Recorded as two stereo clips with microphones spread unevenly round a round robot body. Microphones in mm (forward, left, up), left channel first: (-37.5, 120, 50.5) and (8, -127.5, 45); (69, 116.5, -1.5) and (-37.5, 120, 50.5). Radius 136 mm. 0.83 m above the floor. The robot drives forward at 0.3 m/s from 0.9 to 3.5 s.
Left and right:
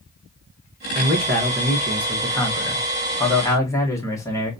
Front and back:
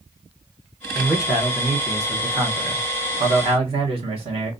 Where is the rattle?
No rattle in this recording.